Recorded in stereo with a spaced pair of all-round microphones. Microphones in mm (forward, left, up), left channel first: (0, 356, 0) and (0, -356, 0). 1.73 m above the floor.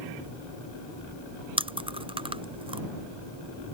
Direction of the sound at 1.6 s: 10° right (ahead or behind).